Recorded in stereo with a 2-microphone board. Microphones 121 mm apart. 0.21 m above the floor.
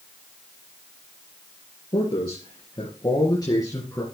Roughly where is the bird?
I don't hear a bird.